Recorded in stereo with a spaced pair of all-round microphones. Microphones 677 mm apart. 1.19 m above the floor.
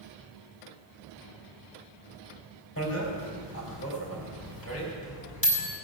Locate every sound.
2.8 s a bicycle bell: 20° left (ahead or behind), 4 m